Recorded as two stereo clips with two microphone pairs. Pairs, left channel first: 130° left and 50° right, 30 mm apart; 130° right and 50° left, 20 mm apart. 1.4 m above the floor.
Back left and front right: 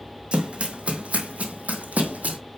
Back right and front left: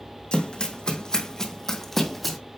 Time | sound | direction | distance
0.3 | running footsteps | 95° right | 2.5 m